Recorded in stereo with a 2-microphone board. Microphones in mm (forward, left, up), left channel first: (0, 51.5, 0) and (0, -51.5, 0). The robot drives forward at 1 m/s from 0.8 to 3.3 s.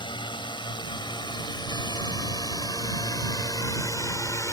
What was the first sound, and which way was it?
A drone, 45° left (ahead or behind).